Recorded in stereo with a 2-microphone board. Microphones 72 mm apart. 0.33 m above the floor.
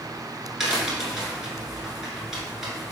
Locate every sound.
0.6 s a crack: 5° right (ahead or behind), 1.2 m